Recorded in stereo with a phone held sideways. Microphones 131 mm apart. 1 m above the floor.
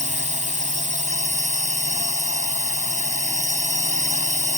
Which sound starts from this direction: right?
A drone, at 0.0 s.